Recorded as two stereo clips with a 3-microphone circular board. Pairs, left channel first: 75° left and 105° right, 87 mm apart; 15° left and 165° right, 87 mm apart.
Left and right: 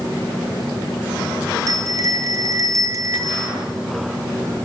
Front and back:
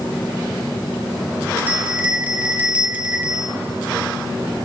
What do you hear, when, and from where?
1.7 s a bell: 105° right, 1.8 m